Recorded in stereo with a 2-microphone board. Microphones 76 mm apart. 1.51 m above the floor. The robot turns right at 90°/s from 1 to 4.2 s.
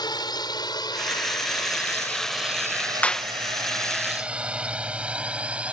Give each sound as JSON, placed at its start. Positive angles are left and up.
{"t": 0.0, "sound": "a drone", "side_deg": 65}
{"t": 3.0, "sound": "a clap", "side_deg": 20}